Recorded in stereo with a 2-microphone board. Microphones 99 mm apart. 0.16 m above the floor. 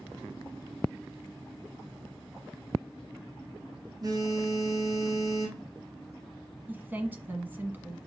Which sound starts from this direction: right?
A phone buzzing, at 4.0 s.